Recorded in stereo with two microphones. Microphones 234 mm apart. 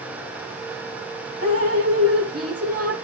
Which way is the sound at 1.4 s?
80° right.